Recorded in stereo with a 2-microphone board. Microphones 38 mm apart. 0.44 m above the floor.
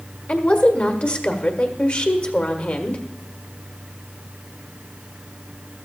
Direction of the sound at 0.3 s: 40° left (ahead or behind).